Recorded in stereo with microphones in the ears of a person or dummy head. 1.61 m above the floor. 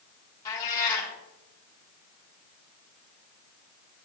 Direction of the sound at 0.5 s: 20° left (ahead or behind).